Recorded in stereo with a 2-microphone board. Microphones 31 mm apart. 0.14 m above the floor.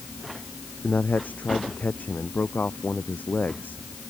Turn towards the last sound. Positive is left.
turn(degrees=75)  # may be behind; listen again after turning